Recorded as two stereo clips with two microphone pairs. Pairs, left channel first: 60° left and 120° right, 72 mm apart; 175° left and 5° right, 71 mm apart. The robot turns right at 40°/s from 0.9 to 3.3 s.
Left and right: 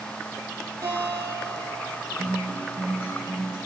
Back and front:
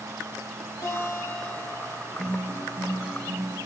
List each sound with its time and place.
0.8 s a guitar: 150° right, 3.5 m; by 2.1 s 105° right, 3.5 m
2.2 s a guitar: 100° right, 4 m; by 3.6 s 55° right, 4 m